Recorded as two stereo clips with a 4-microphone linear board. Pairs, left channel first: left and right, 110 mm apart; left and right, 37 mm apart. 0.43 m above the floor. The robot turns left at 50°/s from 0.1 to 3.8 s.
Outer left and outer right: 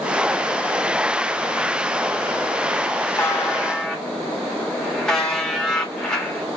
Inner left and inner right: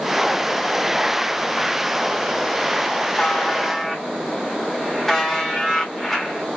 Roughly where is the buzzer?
Ahead left.